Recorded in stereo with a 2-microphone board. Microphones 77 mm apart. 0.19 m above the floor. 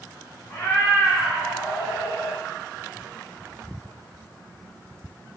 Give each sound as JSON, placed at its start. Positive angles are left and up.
{"t": 0.5, "sound": "a cat meowing", "side_deg": 25, "distance_m": 0.6}